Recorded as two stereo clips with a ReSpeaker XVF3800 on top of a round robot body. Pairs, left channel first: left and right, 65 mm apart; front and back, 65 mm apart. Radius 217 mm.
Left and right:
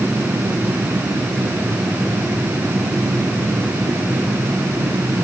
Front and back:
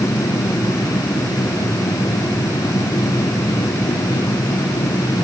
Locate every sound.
Only background noise.